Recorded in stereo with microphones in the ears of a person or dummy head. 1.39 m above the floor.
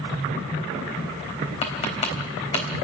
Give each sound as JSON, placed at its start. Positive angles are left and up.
{"t": 1.6, "sound": "tapping", "side_deg": 35, "distance_m": 3.5}